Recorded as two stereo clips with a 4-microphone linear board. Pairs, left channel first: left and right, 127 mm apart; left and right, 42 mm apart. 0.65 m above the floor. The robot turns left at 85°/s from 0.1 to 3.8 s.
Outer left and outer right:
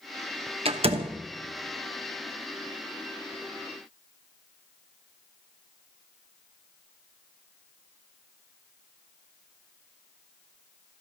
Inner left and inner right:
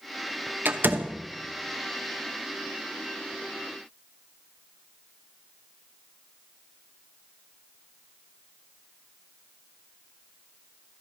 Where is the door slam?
50° right (ahead or behind), 0.8 m; by 1.2 s 40° right (ahead or behind), 0.8 m.